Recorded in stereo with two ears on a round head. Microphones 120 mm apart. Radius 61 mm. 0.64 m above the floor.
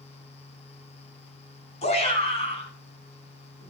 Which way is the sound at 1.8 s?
55° left (ahead or behind).